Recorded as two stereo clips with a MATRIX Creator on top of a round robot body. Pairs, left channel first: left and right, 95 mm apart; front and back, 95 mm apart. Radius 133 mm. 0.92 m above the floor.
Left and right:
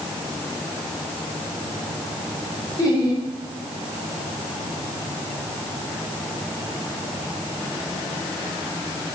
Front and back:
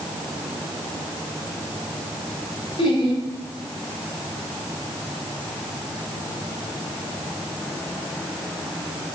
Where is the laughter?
35° left, 5 m.